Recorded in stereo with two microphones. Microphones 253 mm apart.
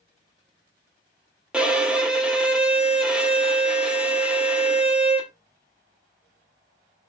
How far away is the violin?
About 0.6 m.